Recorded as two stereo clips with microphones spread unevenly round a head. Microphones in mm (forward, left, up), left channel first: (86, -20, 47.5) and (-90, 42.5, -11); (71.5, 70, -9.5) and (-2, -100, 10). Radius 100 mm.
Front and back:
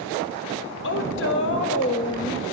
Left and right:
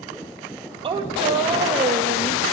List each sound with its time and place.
0.8 s a woman speaking: 50° right, 1.2 m